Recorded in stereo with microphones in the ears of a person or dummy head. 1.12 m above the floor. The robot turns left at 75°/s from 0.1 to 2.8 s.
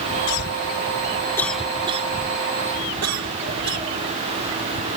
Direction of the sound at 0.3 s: 80° left.